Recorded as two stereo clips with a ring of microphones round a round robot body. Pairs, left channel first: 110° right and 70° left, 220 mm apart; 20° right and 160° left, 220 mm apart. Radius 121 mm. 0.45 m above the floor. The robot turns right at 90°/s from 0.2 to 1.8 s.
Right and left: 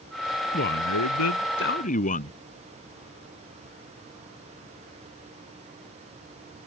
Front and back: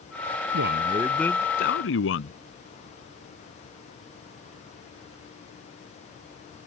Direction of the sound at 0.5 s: 170° right.